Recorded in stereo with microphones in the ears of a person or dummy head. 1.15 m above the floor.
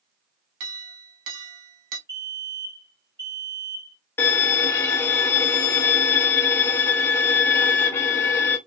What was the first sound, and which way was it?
A clink, 70° right (ahead or behind).